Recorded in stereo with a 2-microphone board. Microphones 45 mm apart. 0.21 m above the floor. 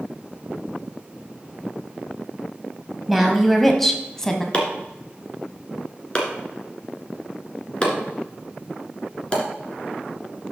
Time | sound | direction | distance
3.1 | a woman speaking | 5° right (ahead or behind) | 1.1 m
4.5 | chopping | 20° left (ahead or behind) | 1.9 m